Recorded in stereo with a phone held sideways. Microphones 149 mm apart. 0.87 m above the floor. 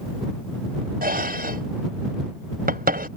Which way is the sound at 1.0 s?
85° right.